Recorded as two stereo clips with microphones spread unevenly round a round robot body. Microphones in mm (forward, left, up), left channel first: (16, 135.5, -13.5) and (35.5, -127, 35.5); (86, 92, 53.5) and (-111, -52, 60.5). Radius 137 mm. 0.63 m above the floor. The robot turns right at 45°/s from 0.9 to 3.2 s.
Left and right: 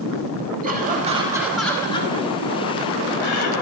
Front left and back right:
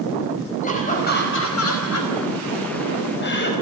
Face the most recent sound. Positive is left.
turn(degrees=80)